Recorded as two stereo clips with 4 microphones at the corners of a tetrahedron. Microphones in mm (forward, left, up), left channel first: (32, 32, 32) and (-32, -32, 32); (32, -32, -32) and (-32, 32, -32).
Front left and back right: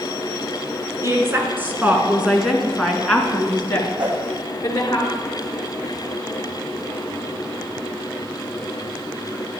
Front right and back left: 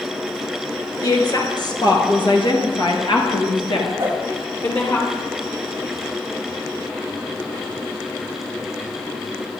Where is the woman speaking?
80° right, 3 m; by 5.0 s 5° right, 3.5 m.